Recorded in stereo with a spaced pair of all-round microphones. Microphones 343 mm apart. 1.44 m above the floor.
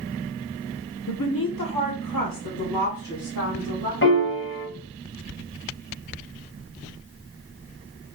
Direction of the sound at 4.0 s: 35° left (ahead or behind).